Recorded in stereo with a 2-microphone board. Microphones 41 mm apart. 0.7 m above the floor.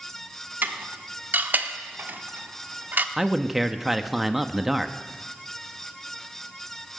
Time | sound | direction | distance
0.6 | dishes clattering | 50° right (ahead or behind) | 0.8 m
3.2 | a man speaking | 5° right (ahead or behind) | 0.7 m